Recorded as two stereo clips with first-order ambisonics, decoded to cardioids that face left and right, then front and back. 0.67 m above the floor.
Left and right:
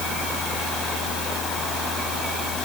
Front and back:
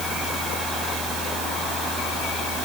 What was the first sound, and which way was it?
Only background noise.